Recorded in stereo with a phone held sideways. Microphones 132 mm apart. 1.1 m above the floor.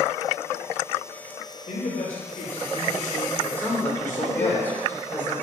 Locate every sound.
1.7 s a man speaking: 60° left (ahead or behind), 4 m; by 4.6 s 80° left, 4 m
3.6 s a man speaking: 15° left (ahead or behind), 3 m